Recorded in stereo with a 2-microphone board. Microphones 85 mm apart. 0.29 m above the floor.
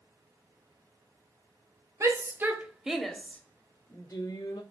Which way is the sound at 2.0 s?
40° right (ahead or behind).